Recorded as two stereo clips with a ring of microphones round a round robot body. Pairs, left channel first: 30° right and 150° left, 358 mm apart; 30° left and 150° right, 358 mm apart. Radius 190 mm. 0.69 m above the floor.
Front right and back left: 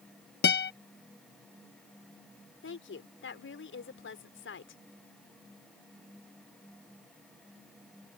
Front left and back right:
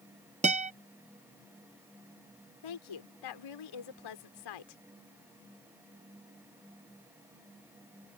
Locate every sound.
0.4 s a guitar: 85° right
2.6 s a woman speaking: 25° left